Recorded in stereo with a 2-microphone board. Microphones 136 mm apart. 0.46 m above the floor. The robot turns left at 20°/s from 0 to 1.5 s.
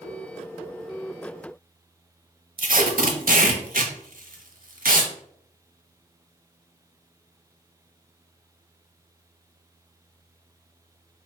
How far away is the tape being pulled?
About 0.6 m.